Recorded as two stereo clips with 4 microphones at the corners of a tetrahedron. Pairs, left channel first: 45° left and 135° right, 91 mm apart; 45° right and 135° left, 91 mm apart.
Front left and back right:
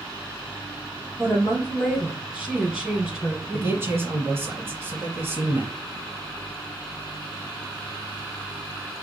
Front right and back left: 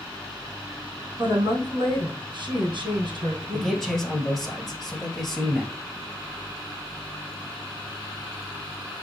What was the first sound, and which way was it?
A woman speaking, 140° left.